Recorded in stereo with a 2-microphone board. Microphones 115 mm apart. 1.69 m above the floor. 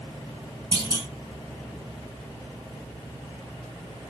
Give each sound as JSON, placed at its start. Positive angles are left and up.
{"t": 0.7, "sound": "a clunk", "side_deg": -55, "distance_m": 2.5}